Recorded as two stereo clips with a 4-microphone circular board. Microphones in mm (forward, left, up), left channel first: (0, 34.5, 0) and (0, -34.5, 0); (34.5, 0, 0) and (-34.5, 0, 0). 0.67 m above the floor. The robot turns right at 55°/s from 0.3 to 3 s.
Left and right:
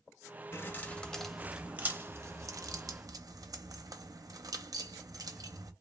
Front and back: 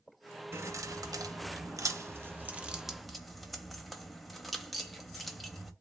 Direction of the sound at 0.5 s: 135° left.